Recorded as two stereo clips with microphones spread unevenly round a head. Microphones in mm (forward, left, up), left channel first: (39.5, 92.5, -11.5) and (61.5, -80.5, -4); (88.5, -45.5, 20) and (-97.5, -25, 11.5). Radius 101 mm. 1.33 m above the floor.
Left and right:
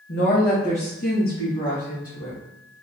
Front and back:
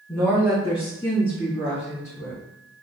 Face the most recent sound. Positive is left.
turn(degrees=50)